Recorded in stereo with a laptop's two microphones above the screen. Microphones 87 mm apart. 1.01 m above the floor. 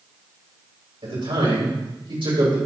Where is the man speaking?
85° right, 3.5 m.